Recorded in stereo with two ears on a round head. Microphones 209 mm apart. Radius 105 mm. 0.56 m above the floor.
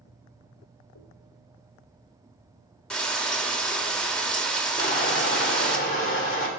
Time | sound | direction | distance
0.9 | a dropped coin | 80° left | 3 m
2.9 | frying | 5° left (ahead or behind) | 1.0 m
4.8 | crushing | 35° left (ahead or behind) | 1.7 m